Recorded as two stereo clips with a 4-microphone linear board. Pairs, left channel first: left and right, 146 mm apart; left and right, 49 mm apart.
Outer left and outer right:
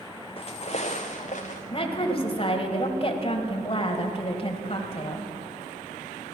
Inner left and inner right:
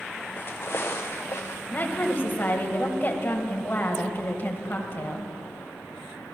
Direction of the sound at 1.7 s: 40° left (ahead or behind).